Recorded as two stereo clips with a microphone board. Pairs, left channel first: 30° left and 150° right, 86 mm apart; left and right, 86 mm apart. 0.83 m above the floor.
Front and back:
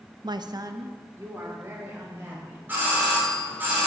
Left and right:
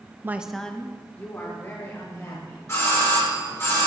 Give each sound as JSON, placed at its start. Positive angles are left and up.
{"t": 0.2, "sound": "a woman speaking", "azimuth_deg": -145, "distance_m": 0.5}
{"t": 2.7, "sound": "a doorbell", "azimuth_deg": 145, "distance_m": 4.0}